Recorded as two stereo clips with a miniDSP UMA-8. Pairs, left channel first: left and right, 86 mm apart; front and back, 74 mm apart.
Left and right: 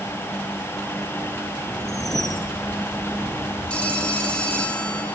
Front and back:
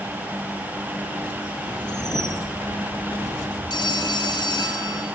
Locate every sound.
1.8 s a whoosh: 5° left, 2.5 m
3.7 s a phone ringing: 10° left, 4.5 m